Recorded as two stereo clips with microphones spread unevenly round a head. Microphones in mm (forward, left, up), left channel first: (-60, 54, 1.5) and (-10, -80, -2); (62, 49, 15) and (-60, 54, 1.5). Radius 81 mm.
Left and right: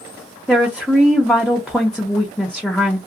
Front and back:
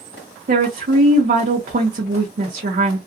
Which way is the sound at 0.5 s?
165° right.